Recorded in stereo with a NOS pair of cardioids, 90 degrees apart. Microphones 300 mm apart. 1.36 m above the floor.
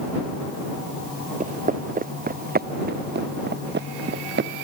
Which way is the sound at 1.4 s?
25° right.